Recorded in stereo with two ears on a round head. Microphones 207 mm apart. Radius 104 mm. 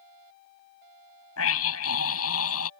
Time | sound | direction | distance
1.4 | a scream | 70° left (ahead or behind) | ?